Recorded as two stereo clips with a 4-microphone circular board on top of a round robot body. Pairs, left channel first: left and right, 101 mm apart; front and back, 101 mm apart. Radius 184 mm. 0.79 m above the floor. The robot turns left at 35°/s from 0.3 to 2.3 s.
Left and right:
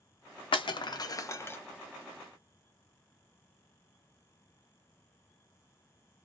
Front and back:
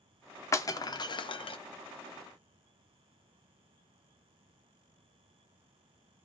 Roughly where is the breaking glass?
Ahead left.